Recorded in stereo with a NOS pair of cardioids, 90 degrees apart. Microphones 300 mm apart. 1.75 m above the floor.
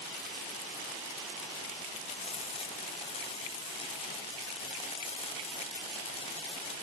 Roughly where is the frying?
Ahead.